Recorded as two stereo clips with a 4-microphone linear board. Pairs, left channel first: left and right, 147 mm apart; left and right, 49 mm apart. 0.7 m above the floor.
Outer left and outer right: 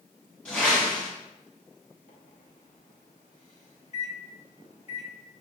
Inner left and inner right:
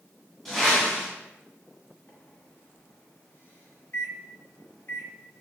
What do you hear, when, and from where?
0.5 s a whoosh: 10° left (ahead or behind), 1.6 m
2.1 s a microwave: 50° left (ahead or behind), 0.9 m